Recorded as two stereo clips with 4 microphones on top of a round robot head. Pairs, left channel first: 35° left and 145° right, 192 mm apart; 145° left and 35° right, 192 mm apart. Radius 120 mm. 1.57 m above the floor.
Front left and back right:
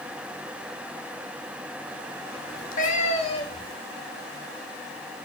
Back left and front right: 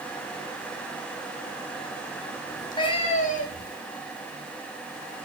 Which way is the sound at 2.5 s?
70° left.